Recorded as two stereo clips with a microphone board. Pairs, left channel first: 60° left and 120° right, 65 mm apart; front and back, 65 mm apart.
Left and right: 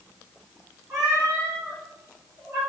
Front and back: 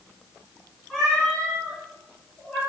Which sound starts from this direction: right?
A cat meowing, at 0.9 s.